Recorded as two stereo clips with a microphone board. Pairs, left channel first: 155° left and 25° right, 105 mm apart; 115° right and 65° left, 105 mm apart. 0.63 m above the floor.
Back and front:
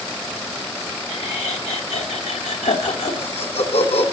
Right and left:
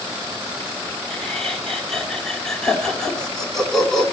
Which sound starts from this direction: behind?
Laughter, at 1.1 s.